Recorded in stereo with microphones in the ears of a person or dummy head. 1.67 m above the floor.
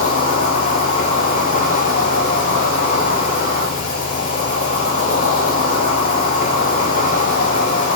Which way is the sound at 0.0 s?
45° left (ahead or behind).